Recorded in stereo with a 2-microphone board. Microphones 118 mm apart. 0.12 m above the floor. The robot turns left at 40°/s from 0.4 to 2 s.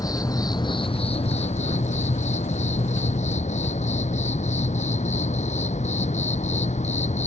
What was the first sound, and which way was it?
An insect, 150° left.